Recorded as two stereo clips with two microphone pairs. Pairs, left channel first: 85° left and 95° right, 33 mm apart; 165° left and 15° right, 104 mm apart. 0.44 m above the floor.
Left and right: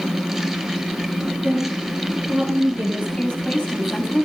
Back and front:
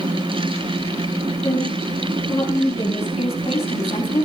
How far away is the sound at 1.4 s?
About 6.5 m.